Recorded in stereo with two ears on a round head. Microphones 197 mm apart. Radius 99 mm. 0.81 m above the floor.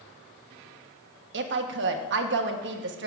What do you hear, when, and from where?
1.3 s a woman speaking: 50° right (ahead or behind), 1.2 m